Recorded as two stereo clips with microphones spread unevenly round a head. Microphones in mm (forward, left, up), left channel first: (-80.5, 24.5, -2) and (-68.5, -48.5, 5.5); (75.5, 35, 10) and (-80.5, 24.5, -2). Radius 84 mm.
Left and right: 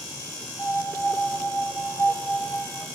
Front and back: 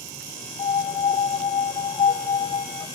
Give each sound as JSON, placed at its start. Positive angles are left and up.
{"t": 0.6, "sound": "a piano", "azimuth_deg": 40, "distance_m": 1.2}